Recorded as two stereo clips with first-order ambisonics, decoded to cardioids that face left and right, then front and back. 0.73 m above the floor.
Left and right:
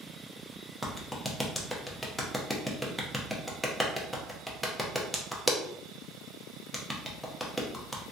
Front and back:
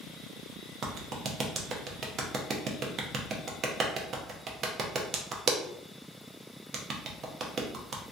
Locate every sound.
0.8 s a clap: 175° left, 0.5 m